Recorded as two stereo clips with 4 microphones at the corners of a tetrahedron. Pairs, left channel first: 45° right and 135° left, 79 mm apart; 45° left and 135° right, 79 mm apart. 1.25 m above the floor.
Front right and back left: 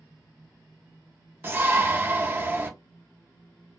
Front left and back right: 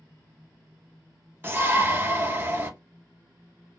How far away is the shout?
About 0.7 m.